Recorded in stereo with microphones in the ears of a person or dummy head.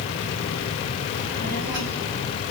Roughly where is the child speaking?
Right.